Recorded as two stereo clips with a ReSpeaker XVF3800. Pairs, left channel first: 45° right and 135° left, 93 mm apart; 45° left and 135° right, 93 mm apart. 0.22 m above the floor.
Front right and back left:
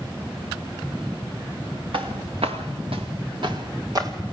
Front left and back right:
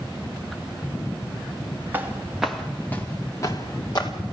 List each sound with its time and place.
1.9 s footsteps: 160° left, 1.7 m; by 4.1 s 85° left, 2.5 m